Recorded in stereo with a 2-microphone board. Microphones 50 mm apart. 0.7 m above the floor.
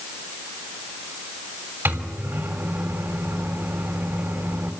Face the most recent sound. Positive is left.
turn(degrees=-55)  # may be behind; listen again after turning